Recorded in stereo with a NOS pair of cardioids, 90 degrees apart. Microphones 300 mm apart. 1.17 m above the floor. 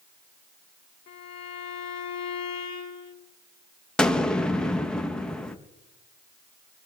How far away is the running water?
No running water in this recording.